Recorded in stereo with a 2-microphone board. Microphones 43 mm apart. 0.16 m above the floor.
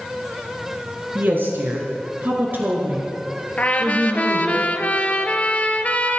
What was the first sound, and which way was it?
A woman speaking, 50° right (ahead or behind).